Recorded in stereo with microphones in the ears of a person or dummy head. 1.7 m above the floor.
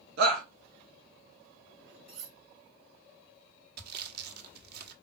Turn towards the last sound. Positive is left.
turn(degrees=-55)  # may be behind; listen again after turning